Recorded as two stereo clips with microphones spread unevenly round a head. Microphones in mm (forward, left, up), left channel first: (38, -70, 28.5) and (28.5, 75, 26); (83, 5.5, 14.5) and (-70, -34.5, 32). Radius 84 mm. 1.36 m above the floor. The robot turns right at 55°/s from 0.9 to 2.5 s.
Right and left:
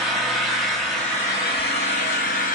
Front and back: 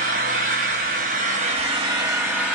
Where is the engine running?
175° right, 1.0 m; by 2.5 s 85° right, 1.0 m.